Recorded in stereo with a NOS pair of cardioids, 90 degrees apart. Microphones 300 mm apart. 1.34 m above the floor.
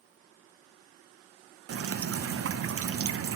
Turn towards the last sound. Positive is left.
turn(degrees=-50)